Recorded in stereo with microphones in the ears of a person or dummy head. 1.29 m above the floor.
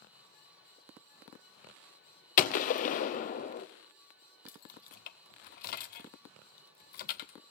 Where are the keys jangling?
45° left (ahead or behind), 0.5 m.